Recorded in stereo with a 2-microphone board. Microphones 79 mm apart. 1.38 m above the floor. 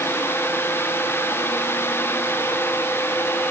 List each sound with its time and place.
Only background noise.